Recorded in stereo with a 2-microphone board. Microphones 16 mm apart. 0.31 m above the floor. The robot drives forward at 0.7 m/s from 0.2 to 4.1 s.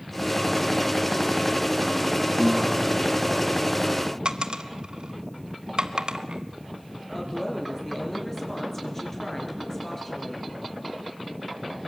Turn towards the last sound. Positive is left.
turn(degrees=15)  # may be behind; listen again after turning